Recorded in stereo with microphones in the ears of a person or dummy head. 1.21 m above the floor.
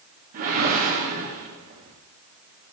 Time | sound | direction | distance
0.3 | a whoosh | 35° right (ahead or behind) | 0.8 m